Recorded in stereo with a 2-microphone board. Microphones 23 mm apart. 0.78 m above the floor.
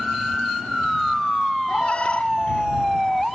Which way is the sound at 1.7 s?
55° left (ahead or behind).